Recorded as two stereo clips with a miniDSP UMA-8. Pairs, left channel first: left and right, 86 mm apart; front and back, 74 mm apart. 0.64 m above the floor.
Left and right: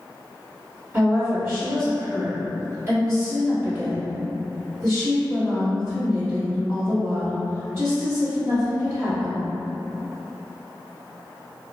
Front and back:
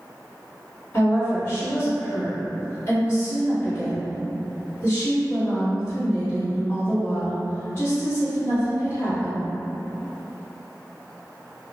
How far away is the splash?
No splash in this recording.